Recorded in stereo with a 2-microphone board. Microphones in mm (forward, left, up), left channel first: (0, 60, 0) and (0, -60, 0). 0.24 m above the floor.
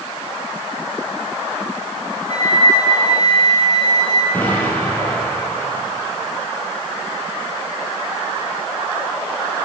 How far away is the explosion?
About 4 m.